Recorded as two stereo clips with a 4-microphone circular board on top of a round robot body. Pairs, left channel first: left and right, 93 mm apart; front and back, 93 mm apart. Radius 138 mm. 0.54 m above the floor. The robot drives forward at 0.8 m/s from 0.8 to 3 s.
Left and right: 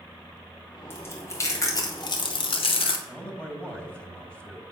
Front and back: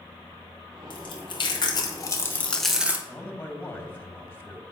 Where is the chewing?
25° left, 1.6 m; by 3.0 s 110° left, 0.7 m.